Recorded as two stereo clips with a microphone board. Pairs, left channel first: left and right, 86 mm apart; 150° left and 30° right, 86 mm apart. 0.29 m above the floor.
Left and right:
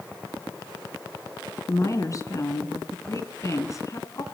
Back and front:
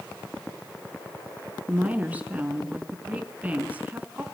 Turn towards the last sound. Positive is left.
turn(degrees=40)